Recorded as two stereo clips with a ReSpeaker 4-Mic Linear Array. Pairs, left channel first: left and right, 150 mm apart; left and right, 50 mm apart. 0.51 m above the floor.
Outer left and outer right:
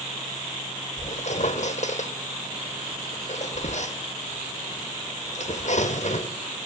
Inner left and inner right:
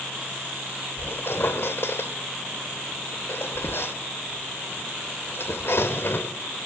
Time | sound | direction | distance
1.0 | a squeak | 55° left (ahead or behind) | 1.2 m